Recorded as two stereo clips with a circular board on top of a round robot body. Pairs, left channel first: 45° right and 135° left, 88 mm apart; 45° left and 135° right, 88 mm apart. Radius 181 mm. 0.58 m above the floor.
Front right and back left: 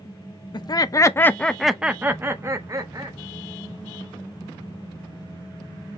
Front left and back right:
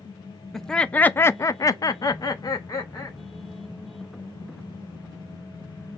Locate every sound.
0.5 s laughter: 40° right, 0.9 m; by 3.2 s 90° left, 1.4 m